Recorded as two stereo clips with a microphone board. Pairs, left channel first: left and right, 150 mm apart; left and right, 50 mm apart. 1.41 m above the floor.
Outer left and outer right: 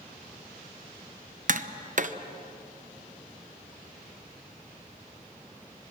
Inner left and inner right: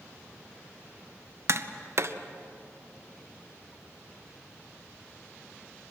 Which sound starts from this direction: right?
Tapping, at 1.5 s.